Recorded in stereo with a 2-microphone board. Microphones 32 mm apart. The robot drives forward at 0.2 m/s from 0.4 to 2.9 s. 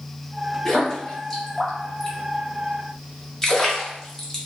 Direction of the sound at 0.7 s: 10° left (ahead or behind).